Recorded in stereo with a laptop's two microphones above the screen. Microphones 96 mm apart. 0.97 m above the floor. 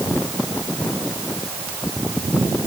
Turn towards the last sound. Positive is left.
No sound to turn to.